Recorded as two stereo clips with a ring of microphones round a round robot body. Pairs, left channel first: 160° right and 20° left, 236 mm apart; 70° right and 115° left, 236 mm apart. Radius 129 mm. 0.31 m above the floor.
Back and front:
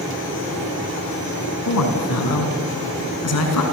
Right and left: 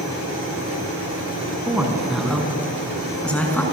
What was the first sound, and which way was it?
A woman speaking, 165° right.